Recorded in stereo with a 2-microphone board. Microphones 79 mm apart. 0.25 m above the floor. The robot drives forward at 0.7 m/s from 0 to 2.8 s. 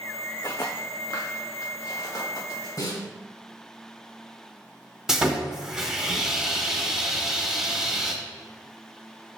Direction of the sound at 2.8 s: 50° left (ahead or behind).